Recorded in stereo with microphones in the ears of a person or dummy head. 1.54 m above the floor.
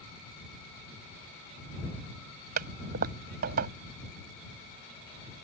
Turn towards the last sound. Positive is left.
turn(degrees=-45)  # may be behind; listen again after turning